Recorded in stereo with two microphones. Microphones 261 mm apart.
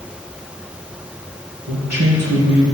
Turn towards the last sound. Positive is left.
turn(degrees=-70)  # may be behind; listen again after turning